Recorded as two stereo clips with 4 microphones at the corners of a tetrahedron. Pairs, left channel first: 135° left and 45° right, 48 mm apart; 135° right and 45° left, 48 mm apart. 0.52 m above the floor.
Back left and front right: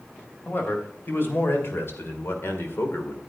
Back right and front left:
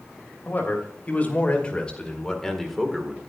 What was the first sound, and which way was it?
A man speaking, 175° left.